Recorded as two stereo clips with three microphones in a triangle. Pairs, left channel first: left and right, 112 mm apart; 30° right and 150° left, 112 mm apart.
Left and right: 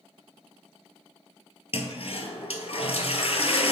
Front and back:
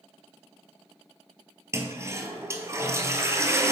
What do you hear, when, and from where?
1.7 s a toilet flushing: 90° left, 0.7 m